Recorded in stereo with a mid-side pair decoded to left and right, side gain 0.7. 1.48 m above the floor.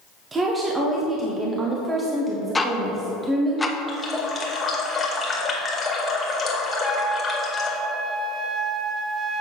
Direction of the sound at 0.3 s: 25° right.